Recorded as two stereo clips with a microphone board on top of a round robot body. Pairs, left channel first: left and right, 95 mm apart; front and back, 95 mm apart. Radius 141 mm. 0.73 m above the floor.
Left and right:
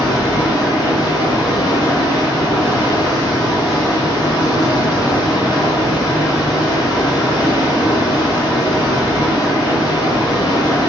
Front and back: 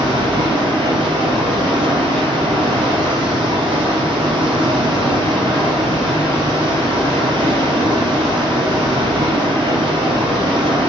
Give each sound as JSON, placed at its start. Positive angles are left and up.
{"t": 0.0, "sound": "running water", "azimuth_deg": 145, "distance_m": 0.8}